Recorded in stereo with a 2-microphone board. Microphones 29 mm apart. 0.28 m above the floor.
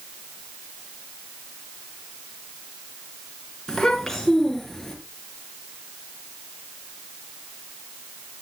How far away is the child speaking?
About 3 m.